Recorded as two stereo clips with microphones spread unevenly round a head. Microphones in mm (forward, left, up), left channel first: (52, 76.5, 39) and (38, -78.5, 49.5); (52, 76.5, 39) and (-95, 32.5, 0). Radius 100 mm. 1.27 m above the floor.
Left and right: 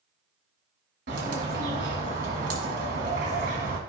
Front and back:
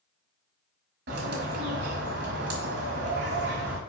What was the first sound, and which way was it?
A bird, 140° right.